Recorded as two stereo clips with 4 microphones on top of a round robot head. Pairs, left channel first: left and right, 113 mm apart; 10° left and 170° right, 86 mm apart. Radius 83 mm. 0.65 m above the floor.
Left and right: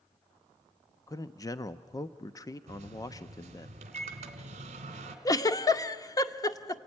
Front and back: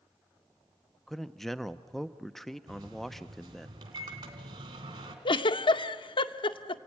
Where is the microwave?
125° right, 2 m.